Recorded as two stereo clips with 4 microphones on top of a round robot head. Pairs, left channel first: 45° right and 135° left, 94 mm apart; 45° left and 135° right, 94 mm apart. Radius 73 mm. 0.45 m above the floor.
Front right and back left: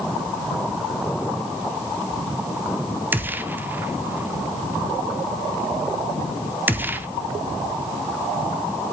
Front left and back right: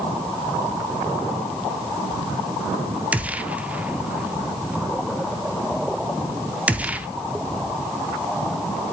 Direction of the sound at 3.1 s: 170° left.